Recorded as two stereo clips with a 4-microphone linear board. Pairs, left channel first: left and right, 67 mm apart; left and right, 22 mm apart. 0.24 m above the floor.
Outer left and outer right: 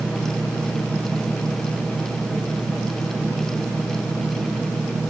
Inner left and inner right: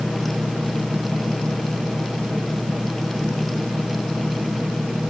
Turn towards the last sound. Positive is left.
No sound to turn to.